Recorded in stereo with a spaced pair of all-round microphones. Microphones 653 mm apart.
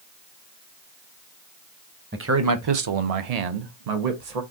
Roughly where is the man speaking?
Centre.